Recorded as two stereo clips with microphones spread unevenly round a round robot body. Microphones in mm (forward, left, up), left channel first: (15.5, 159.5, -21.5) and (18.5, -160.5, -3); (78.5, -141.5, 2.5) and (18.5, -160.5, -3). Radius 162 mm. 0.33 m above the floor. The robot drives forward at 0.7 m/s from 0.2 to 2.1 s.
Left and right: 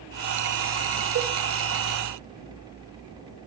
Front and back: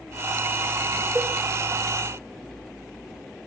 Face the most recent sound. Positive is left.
turn(degrees=-145)